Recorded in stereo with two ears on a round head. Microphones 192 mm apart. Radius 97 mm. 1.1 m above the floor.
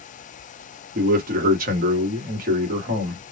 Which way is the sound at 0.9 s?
40° right (ahead or behind).